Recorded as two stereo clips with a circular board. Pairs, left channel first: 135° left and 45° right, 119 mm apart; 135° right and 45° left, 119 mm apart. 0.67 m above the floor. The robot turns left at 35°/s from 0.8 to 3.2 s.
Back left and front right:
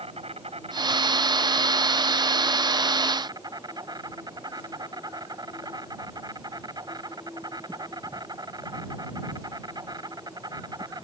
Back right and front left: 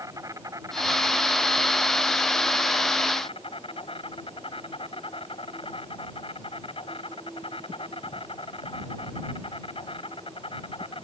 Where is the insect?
15° right; by 11.1 s 100° right.